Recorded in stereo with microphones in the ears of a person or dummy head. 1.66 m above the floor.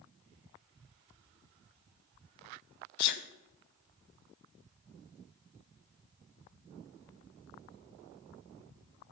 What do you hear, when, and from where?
3.0 s a sneeze: 55° left (ahead or behind), 1.0 m